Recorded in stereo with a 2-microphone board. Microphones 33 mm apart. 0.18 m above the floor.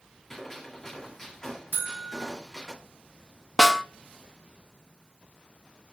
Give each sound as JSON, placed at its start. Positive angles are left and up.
{"t": 0.3, "sound": "a gunshot", "side_deg": 15, "distance_m": 2.0}
{"t": 1.7, "sound": "a buzzer", "side_deg": -60, "distance_m": 0.8}
{"t": 3.6, "sound": "a snare drum", "side_deg": 10, "distance_m": 0.5}